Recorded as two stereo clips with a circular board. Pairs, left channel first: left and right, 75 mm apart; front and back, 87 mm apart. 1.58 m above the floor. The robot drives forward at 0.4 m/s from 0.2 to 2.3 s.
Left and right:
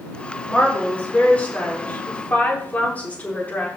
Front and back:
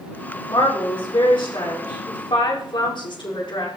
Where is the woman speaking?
20° left, 5 m.